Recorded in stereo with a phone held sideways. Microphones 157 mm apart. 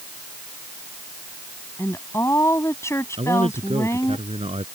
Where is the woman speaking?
15° left (ahead or behind).